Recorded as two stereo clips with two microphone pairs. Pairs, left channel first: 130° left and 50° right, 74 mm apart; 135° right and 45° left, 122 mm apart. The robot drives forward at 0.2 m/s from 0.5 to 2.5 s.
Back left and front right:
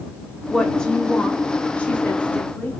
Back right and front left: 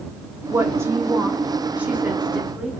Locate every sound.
0.5 s a woman speaking: 65° left, 1.1 m; by 2.7 s 120° left, 1.1 m